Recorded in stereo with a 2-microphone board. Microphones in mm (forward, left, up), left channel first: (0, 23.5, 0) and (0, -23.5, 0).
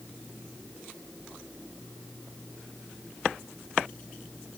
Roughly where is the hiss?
I don't hear a hiss.